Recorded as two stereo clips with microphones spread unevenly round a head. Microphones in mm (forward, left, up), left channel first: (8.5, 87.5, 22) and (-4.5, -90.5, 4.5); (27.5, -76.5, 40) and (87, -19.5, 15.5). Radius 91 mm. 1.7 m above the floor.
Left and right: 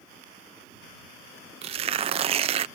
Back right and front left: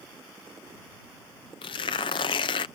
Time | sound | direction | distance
1.6 | tearing paper | 155° right | ?